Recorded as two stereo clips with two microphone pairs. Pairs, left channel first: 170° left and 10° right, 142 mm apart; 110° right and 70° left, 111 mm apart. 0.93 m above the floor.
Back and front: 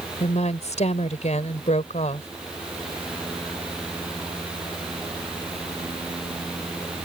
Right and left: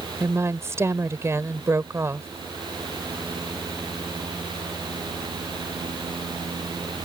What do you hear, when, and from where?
0.2 s a woman speaking: 135° left